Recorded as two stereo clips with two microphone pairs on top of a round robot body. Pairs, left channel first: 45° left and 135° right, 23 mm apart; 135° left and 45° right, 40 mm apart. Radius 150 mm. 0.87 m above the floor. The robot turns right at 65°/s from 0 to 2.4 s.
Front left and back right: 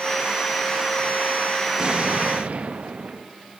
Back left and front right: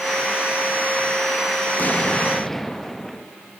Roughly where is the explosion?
Behind.